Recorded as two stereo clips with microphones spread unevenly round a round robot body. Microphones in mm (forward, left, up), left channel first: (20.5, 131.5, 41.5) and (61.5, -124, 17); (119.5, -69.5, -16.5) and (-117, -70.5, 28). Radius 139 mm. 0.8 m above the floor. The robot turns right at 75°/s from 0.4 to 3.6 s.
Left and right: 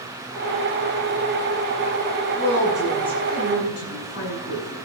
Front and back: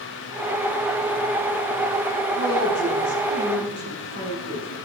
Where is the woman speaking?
25° right, 9.5 m; by 4.7 s 70° left, 9.5 m.